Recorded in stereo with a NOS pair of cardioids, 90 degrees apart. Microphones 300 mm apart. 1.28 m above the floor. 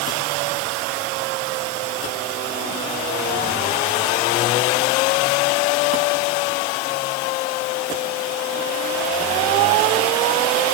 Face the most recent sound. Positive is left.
No sound to turn to.